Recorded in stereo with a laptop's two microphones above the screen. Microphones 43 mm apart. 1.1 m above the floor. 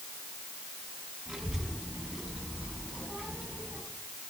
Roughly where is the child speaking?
Centre.